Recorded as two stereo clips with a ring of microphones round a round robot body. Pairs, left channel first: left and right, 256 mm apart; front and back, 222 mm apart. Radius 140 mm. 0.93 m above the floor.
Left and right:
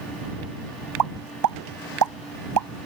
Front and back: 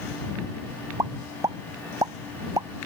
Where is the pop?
100° right.